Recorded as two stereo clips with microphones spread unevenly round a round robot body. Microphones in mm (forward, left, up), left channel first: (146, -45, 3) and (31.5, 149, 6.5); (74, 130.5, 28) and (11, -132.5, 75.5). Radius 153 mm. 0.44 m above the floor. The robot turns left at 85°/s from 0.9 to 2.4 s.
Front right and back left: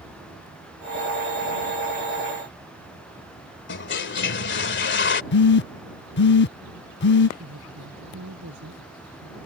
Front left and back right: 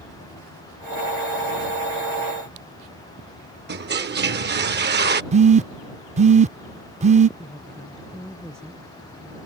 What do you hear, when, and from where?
3.7 s a toilet flushing: 55° right
5.3 s a phone buzzing: 35° right
7.4 s a woman speaking: 165° left